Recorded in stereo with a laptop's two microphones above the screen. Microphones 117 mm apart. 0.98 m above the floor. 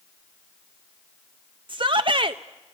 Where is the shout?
45° right (ahead or behind), 0.7 m.